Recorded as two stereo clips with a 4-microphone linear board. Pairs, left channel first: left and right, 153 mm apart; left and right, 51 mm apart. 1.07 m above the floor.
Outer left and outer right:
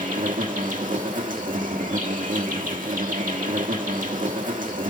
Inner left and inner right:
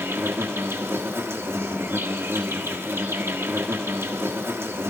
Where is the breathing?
I don't hear breathing.